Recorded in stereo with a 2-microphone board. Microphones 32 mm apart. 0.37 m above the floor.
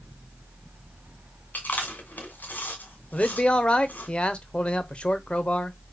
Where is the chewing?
55° left (ahead or behind), 2 m.